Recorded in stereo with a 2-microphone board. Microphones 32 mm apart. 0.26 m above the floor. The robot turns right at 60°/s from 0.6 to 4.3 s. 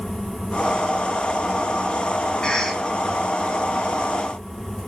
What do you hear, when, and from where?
2.4 s a cough: 30° left (ahead or behind), 2.5 m; by 2.8 s 10° left (ahead or behind), 2.5 m